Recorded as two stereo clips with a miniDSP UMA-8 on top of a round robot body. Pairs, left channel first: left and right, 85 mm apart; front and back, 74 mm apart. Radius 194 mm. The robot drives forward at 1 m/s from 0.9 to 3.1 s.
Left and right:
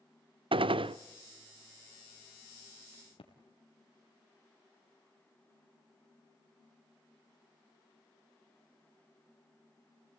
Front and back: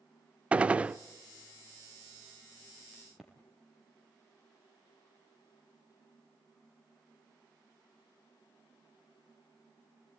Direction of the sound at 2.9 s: 90° left.